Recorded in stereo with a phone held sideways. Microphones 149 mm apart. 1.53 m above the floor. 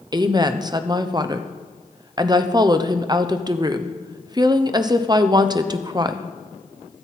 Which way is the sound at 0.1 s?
30° right (ahead or behind).